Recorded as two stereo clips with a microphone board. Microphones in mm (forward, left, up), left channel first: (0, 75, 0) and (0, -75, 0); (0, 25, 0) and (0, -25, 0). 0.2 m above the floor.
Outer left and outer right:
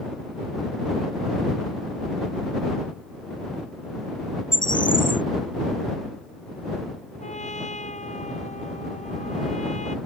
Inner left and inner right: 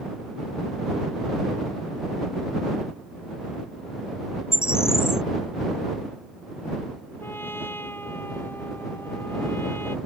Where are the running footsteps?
No running footsteps in this recording.